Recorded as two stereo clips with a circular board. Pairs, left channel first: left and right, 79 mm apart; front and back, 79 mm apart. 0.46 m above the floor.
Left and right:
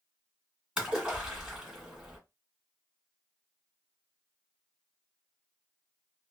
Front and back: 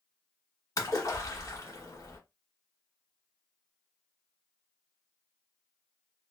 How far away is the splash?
About 1.8 m.